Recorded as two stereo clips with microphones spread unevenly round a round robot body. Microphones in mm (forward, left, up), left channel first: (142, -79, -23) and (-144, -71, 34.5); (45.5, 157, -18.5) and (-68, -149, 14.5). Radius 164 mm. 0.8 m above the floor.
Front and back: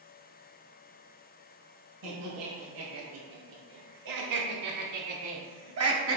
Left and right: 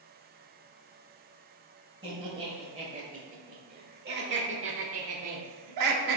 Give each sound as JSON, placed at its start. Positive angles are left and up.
{"t": 2.0, "sound": "laughter", "azimuth_deg": 175, "distance_m": 4.0}